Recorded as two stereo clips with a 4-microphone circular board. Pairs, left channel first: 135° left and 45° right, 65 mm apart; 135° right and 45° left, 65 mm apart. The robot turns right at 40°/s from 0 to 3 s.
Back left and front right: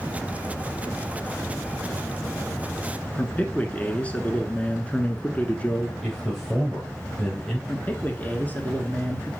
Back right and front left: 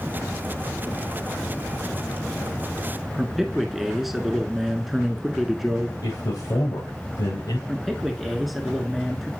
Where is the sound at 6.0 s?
140° right, 3.5 m.